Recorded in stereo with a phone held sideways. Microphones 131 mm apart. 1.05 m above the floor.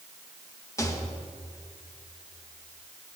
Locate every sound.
0.8 s a rattle: 25° left (ahead or behind), 1.5 m